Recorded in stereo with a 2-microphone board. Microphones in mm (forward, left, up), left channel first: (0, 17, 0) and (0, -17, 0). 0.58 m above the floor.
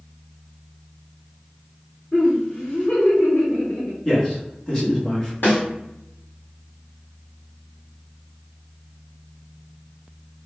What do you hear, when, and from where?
2.1 s laughter: 35° left (ahead or behind), 1.8 m; by 4.0 s 55° left (ahead or behind), 2 m
4.0 s a man speaking: 20° left (ahead or behind), 1.3 m
5.4 s a snare drum: 60° left (ahead or behind), 1.6 m